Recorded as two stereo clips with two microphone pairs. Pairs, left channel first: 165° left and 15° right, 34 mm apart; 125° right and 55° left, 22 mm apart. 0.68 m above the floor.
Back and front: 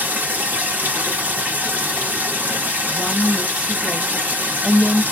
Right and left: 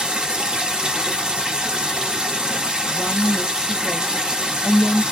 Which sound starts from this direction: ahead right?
A woman speaking, at 2.9 s.